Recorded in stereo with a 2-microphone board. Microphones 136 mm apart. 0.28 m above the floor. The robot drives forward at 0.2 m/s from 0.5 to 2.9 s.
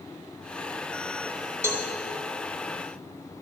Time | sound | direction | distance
1.6 | a cowbell | 20° right (ahead or behind) | 1.2 m